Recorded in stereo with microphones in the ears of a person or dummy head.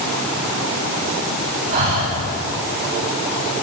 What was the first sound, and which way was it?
Breathing, 55° right (ahead or behind).